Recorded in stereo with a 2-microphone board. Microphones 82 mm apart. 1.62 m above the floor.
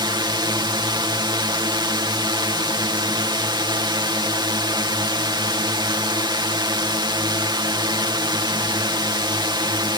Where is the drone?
65° right (ahead or behind).